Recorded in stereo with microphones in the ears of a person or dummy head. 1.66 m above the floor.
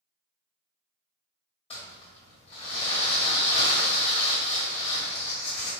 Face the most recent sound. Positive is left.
turn(degrees=30)  # may be behind; listen again after turning